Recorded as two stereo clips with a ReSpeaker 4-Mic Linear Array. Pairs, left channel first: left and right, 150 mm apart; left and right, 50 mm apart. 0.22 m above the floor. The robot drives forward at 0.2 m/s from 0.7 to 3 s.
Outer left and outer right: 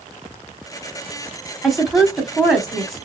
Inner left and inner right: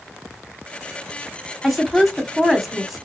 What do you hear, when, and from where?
1.6 s a woman speaking: centre (ahead or behind), 1.0 m